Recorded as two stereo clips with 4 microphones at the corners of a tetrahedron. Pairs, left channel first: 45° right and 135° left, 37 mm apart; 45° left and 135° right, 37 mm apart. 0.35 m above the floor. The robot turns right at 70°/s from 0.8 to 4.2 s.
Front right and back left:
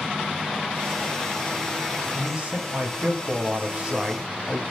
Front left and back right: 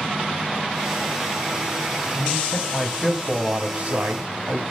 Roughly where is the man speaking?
Ahead left.